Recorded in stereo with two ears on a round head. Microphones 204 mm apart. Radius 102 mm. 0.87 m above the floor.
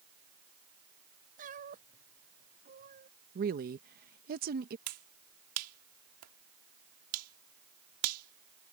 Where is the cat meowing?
35° right (ahead or behind); by 3.1 s 40° right (ahead or behind).